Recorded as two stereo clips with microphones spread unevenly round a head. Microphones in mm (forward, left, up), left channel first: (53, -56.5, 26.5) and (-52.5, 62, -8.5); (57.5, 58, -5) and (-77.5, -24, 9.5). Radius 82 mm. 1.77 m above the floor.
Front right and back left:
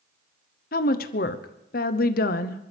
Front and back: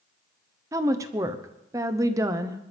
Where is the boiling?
No boiling in this recording.